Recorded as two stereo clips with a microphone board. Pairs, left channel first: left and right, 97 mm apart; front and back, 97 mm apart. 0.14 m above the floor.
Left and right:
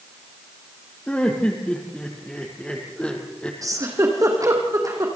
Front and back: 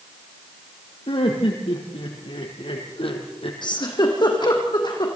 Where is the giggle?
35° right, 4.5 m.